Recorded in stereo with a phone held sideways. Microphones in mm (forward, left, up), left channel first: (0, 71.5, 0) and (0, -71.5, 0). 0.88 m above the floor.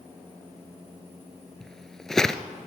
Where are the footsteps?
5° left (ahead or behind), 1.0 m.